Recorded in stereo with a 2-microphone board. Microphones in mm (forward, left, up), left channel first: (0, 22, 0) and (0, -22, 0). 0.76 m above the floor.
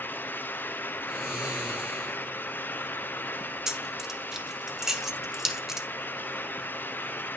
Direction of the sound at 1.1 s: 5° right (ahead or behind).